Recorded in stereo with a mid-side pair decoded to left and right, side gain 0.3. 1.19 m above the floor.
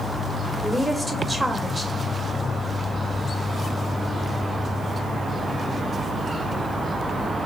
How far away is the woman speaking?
About 1.4 m.